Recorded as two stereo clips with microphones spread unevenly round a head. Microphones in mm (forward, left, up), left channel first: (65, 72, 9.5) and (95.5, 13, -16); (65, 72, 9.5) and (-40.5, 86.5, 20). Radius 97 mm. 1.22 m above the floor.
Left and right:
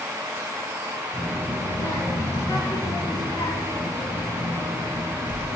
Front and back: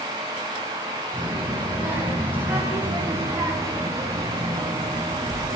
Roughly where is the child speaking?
Left.